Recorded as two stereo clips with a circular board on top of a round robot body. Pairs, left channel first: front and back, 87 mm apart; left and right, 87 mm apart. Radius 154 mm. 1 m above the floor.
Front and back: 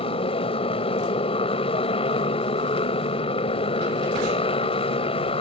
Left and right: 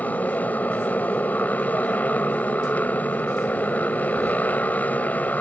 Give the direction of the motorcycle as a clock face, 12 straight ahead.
11 o'clock.